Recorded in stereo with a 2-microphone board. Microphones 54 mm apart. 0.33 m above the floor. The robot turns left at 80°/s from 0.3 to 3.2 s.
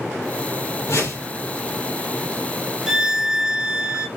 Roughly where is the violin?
Centre.